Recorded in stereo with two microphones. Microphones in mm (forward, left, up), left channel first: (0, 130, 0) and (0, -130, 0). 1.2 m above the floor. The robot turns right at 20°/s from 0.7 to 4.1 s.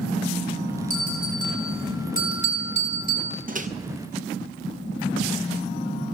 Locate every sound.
0.9 s a bell: 105° left, 5 m; by 3.4 s 150° left, 5 m
3.5 s a microwave: 35° right (ahead or behind), 0.6 m; by 3.7 s 30° right (ahead or behind), 0.6 m